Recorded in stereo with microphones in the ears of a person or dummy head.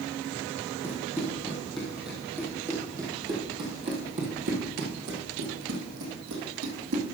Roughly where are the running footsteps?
Centre.